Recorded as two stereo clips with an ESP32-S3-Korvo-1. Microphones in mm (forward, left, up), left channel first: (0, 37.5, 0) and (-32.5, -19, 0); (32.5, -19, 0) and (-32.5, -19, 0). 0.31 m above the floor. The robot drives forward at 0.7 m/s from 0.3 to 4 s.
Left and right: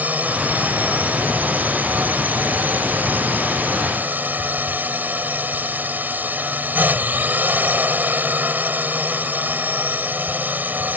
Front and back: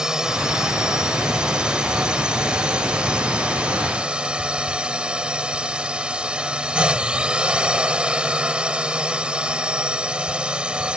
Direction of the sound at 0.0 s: 115° right.